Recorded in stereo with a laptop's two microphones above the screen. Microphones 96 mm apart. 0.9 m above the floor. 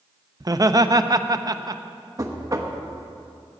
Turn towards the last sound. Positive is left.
turn(degrees=-35)  # may be behind; listen again after turning